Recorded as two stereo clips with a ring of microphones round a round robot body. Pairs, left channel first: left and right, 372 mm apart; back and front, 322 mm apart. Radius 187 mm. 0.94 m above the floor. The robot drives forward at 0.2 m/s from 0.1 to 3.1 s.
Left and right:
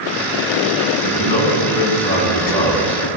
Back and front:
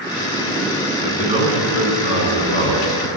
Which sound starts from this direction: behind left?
A man speaking, at 1.0 s.